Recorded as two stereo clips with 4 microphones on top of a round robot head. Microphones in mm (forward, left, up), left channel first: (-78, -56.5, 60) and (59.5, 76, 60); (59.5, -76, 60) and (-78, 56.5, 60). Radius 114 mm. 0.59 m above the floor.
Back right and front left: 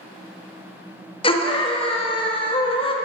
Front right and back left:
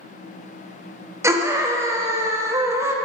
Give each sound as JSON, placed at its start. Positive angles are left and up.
{"t": 1.2, "sound": "a scream", "azimuth_deg": -160, "distance_m": 0.9}